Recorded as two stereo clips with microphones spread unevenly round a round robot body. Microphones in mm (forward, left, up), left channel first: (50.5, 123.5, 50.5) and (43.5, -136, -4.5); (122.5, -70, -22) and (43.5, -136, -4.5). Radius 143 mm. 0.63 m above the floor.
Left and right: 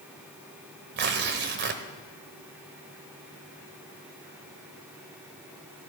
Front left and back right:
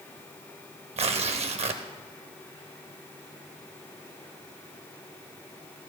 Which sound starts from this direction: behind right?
Tearing paper, at 1.0 s.